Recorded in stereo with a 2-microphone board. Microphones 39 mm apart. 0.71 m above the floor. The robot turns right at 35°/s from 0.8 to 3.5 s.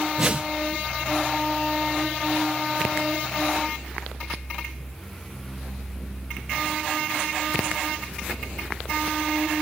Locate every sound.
0.2 s a whoosh: 30° right (ahead or behind), 0.7 m